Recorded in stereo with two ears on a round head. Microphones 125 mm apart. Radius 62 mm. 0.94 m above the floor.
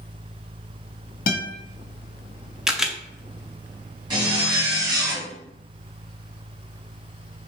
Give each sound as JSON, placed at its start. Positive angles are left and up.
{"t": 1.3, "sound": "a guitar", "side_deg": 65, "distance_m": 1.1}
{"t": 2.7, "sound": "a camera shutter", "side_deg": -5, "distance_m": 0.6}
{"t": 4.1, "sound": "a zipper", "side_deg": -30, "distance_m": 2.5}